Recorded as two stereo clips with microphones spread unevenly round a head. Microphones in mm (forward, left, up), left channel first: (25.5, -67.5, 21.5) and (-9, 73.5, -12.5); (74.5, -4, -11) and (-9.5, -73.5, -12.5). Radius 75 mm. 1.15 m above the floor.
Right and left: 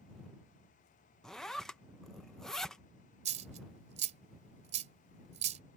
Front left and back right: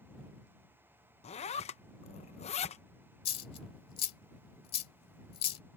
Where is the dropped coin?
55° left.